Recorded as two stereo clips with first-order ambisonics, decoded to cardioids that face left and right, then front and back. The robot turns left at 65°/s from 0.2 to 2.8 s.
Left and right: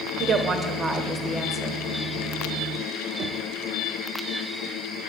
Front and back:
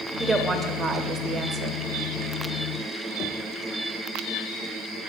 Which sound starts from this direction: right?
A woman speaking, at 0.2 s.